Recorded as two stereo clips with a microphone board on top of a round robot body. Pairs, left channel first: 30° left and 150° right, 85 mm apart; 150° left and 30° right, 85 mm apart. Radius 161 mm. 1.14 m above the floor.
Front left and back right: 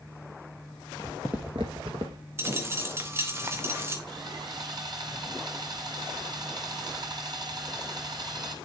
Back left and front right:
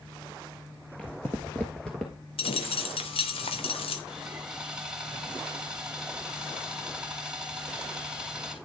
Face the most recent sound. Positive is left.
turn(degrees=-110)